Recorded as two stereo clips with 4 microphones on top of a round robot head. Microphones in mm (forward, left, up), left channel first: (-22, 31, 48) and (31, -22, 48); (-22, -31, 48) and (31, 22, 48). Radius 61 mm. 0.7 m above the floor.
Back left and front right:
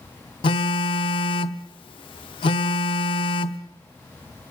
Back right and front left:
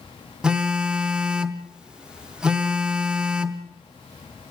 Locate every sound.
0.4 s a phone buzzing: 125° left, 0.9 m